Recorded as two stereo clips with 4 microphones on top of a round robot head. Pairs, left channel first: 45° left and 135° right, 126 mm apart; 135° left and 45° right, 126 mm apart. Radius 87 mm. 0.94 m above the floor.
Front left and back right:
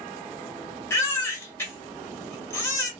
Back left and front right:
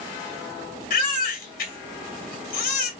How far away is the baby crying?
About 1.6 m.